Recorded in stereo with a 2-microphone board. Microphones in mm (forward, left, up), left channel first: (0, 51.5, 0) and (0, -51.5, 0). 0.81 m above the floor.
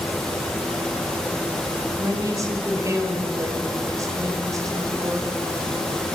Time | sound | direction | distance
2.0 | a woman speaking | 30° right (ahead or behind) | 4 m